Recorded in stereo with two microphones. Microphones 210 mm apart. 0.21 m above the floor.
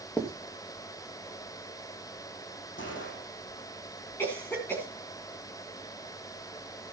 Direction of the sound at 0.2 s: 10° left (ahead or behind).